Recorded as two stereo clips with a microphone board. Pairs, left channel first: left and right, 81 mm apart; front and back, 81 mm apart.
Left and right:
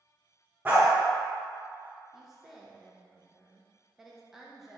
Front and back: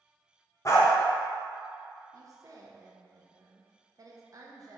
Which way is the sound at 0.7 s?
30° right.